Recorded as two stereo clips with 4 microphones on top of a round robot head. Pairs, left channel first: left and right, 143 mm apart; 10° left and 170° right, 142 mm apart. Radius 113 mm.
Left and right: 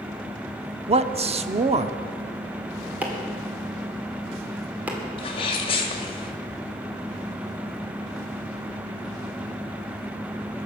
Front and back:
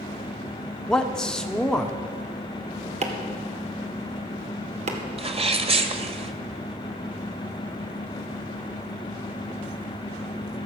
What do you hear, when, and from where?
0.9 s a man speaking: 75° right, 0.9 m
3.0 s chopping: 165° right, 2 m
5.2 s a sneeze: 145° left, 1.9 m